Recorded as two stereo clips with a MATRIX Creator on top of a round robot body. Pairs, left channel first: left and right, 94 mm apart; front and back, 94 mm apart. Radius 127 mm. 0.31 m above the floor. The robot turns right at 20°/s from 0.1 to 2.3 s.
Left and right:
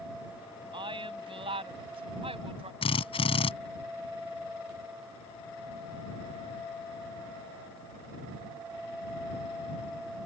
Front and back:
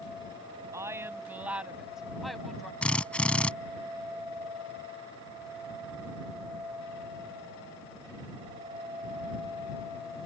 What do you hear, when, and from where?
0.7 s a woman speaking: 120° right; by 2.7 s 90° right
2.8 s a drill: 80° left